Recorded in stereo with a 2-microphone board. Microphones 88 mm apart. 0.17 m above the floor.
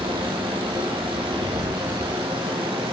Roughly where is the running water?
Right.